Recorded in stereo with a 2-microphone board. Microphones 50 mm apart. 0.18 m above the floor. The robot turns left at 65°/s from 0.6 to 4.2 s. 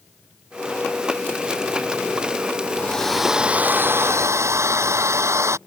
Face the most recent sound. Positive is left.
turn(degrees=-70)